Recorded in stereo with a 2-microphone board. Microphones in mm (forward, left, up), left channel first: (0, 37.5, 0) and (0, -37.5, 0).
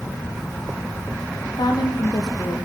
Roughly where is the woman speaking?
Left.